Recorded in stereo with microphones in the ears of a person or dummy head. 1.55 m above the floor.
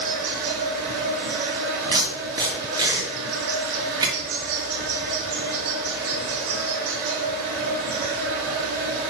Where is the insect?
50° right (ahead or behind), 1.0 m.